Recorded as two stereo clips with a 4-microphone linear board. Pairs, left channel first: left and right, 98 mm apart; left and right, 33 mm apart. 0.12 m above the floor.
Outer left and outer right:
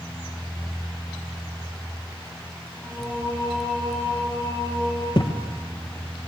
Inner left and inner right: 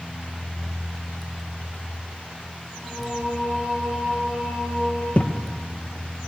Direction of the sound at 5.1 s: 50° left (ahead or behind).